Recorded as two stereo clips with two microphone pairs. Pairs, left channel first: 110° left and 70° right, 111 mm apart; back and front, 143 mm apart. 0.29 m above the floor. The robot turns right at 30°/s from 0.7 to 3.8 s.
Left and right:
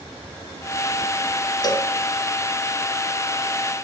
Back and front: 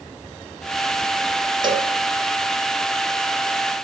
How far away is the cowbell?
About 0.7 m.